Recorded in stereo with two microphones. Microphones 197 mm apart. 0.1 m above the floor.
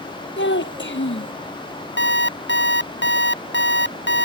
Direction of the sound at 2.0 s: 60° left (ahead or behind).